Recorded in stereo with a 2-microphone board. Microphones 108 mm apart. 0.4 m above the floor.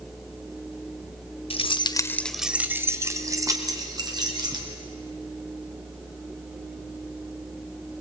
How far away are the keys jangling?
About 1.0 m.